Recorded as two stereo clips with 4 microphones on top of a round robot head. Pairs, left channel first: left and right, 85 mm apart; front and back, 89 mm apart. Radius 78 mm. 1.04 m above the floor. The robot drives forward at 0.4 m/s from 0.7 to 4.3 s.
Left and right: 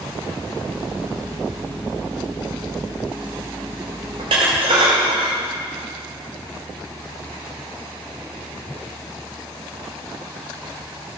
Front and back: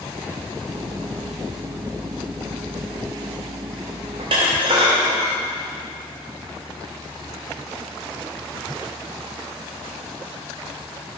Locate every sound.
4.2 s dishes clattering: 130° right, 2.5 m; by 5.4 s 135° right, 2.5 m